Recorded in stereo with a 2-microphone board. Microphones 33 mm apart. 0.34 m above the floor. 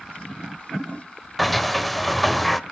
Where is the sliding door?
Centre (ahead or behind), 0.7 m.